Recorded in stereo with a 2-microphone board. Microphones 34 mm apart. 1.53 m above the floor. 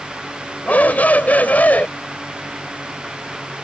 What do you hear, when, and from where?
0.7 s a shout: 60° left (ahead or behind)